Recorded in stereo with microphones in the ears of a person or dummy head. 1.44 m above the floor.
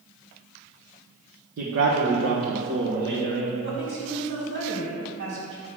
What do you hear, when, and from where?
1.6 s a man speaking: 70° right (ahead or behind), 1.2 m; by 3.5 s 80° right, 2.5 m
3.6 s a woman speaking: 75° right (ahead or behind), 3 m